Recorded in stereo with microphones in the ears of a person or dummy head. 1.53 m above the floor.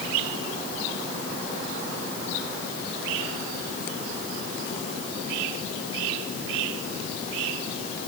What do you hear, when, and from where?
Only background noise.